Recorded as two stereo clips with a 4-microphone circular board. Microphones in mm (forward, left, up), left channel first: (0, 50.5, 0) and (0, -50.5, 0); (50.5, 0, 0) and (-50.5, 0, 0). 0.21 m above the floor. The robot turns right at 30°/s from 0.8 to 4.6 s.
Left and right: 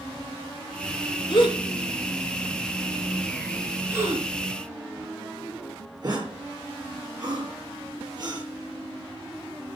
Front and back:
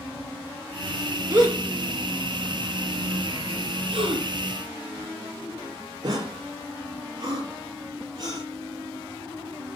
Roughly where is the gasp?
Behind left.